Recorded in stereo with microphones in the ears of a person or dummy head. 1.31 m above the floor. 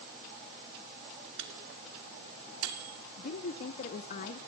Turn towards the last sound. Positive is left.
turn(degrees=45)  # may be behind; listen again after turning